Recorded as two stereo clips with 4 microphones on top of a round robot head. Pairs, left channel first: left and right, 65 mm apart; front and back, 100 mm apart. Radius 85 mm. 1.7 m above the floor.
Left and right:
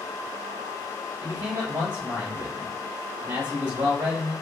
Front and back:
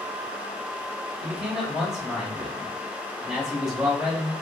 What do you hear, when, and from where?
1.2 s a man speaking: 95° right, 1.0 m